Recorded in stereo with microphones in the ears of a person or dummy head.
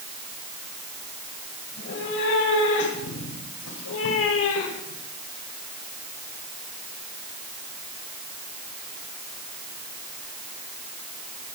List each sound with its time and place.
1.7 s a cat meowing: 65° left (ahead or behind), 4 m; by 5.0 s 75° left (ahead or behind), 2.5 m